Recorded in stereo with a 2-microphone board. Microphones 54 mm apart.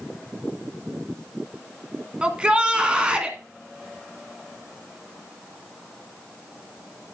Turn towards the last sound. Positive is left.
turn(degrees=-20)  # may be behind; listen again after turning